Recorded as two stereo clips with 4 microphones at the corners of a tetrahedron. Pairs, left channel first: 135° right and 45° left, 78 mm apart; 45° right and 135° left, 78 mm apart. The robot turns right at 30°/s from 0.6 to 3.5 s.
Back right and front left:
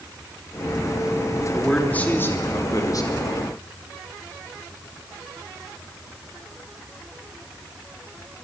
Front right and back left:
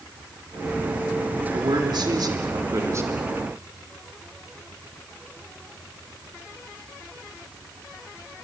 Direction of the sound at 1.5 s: 145° left.